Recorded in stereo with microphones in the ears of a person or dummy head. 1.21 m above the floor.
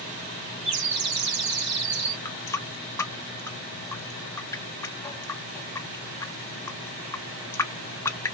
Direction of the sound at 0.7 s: 70° right (ahead or behind).